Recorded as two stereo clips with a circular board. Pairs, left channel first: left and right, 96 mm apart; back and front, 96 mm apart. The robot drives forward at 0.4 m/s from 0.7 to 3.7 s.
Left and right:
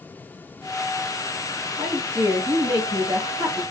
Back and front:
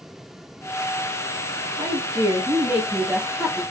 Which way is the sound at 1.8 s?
35° right.